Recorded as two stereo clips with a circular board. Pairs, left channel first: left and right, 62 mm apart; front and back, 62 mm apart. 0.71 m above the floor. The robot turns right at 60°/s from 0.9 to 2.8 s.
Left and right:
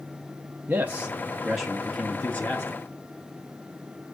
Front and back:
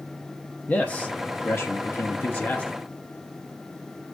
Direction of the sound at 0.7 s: 45° right.